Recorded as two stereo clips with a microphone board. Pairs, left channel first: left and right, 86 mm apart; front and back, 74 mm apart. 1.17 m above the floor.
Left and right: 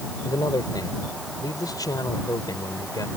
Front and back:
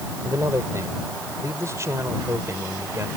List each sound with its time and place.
0.2 s a man speaking: 130° left